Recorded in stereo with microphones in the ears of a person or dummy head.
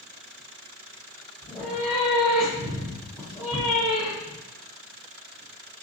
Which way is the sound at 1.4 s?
Centre (ahead or behind).